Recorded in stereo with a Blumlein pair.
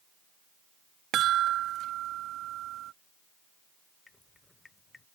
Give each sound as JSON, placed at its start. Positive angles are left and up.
{"t": 1.1, "sound": "a chime", "azimuth_deg": -35}
{"t": 4.1, "sound": "dripping", "azimuth_deg": 10}